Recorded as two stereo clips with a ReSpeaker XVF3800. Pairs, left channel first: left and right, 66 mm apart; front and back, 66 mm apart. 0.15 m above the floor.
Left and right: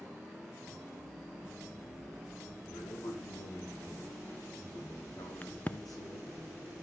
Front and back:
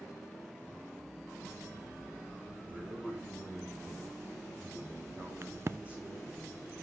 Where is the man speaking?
105° left, 5 m; by 6.4 s 115° left, 8 m.